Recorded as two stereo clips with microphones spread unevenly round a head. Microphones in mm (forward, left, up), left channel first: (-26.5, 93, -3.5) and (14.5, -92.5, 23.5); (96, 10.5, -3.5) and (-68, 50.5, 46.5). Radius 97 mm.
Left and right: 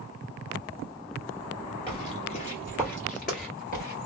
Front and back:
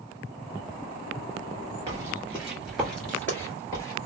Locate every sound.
1.9 s footsteps: 160° left, 1.8 m; by 4.1 s 65° left, 2 m